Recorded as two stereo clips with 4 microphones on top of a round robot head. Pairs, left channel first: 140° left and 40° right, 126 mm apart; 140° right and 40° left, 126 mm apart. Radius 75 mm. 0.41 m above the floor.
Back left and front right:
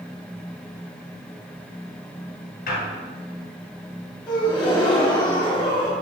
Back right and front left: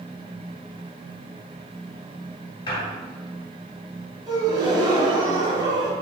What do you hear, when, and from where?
2.7 s a squeak: 165° left, 1.5 m
4.3 s a gasp: 90° left, 1.5 m